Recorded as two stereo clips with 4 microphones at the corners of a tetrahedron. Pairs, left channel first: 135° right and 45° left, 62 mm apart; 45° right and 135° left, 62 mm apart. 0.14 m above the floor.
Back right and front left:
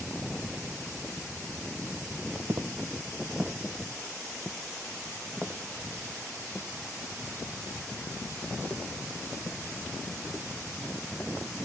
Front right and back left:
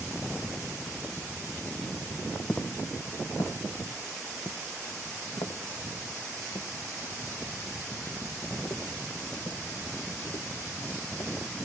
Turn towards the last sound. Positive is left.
turn(degrees=-60)